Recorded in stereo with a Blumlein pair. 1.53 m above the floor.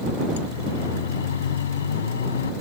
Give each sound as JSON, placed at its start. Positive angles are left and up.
{"t": 0.4, "sound": "a siren", "azimuth_deg": 60}